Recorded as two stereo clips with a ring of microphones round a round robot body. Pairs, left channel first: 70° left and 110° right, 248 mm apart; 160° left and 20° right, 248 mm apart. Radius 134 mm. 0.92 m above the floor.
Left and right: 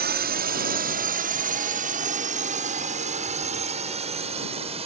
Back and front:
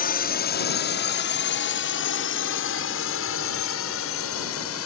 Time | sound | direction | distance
0.0 | a drone | 155° right | ?